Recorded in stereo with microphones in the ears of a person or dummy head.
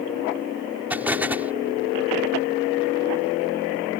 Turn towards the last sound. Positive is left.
turn(degrees=-5)  # may be behind; listen again after turning